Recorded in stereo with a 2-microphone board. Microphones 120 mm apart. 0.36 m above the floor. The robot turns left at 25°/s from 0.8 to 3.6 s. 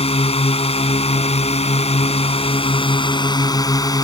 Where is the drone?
110° left; by 4.0 s 40° left.